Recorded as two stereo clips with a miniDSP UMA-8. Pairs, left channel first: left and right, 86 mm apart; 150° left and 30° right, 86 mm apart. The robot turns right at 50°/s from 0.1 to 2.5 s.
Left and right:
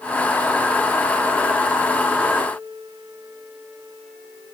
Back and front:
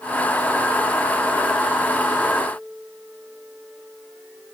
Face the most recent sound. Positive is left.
No sound to turn to.